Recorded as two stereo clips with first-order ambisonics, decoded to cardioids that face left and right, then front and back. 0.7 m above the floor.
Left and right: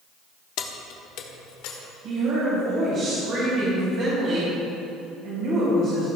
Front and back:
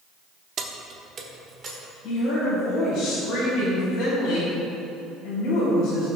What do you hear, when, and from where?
0.6 s keys jangling: 125° left, 0.8 m; by 1.8 s 110° left, 1.5 m
2.0 s a woman speaking: 45° right, 3.5 m